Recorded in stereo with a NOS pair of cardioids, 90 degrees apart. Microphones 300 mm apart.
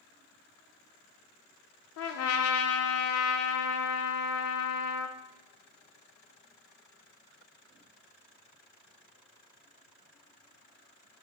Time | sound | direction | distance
2.0 | a trumpet | 60° left | 0.5 m